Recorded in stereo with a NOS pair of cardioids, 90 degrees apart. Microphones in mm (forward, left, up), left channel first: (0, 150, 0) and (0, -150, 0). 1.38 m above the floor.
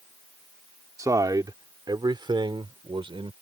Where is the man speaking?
10° right; by 3.3 s 15° right.